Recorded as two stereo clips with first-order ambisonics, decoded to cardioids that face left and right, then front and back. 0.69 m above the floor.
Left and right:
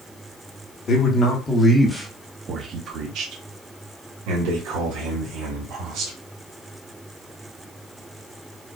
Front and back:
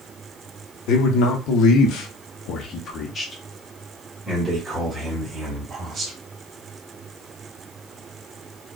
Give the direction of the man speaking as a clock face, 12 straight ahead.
11 o'clock.